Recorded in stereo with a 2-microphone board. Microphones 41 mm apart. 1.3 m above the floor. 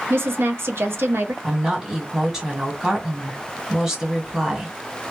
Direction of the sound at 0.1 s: 80° right.